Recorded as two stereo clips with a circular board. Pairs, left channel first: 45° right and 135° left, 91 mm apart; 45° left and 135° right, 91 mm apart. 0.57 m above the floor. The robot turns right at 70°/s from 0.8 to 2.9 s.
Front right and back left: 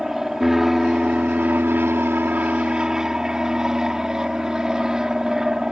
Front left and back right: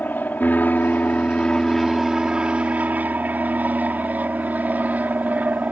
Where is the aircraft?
55° left; by 5.7 s 155° right.